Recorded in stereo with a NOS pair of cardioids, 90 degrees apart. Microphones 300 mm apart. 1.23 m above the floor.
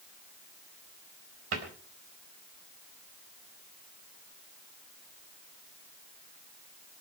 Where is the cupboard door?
50° right, 4 m.